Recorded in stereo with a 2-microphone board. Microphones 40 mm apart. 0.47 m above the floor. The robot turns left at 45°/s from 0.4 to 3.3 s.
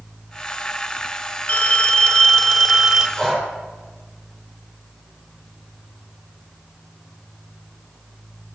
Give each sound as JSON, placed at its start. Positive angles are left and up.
{"t": 1.5, "sound": "a phone ringing", "azimuth_deg": 60, "distance_m": 1.1}
{"t": 3.2, "sound": "breathing", "side_deg": 15, "distance_m": 4.0}